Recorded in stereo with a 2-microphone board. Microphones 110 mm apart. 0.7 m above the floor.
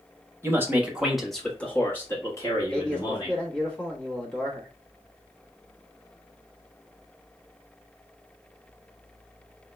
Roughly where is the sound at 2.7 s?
Centre.